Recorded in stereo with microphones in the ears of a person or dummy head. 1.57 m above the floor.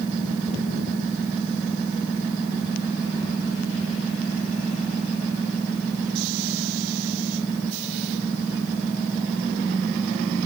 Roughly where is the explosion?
No explosion in this recording.